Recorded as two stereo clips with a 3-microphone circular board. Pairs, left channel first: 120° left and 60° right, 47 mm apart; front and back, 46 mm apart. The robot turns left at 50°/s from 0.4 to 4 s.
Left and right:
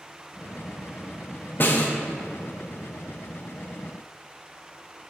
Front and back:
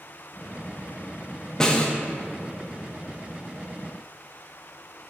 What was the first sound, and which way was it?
A snare drum, 75° left.